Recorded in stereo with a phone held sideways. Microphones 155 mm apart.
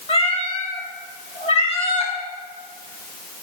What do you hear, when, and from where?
0.1 s a cat meowing: 40° left (ahead or behind), 1.2 m